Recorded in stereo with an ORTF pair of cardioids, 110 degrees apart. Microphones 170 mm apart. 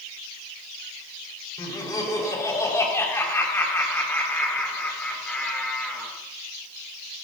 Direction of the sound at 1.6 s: 20° left.